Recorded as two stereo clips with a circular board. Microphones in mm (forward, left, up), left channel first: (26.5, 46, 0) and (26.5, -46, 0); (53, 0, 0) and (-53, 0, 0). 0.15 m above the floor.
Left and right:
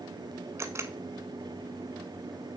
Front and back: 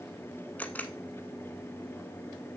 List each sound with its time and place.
0.6 s a camera shutter: 65° right, 0.8 m